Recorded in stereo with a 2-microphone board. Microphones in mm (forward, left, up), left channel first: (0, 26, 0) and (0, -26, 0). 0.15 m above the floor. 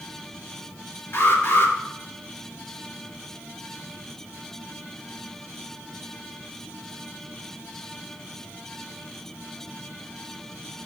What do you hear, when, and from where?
1.1 s an alarm: 50° left (ahead or behind), 4 m